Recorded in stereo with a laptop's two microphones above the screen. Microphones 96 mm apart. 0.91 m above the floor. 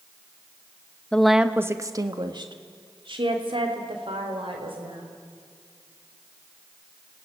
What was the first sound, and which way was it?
A woman speaking, 10° left (ahead or behind).